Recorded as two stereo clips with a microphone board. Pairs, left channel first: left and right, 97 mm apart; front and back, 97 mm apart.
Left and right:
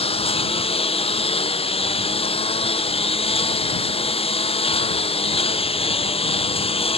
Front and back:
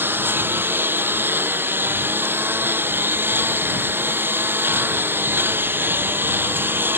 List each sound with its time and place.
0.0 s a lawn mower: 110° left